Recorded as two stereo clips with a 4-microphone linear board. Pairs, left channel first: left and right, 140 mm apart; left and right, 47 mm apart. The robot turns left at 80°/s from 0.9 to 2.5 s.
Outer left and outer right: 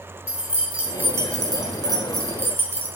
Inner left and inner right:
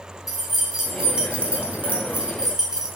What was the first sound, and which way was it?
Keys jangling, 20° right.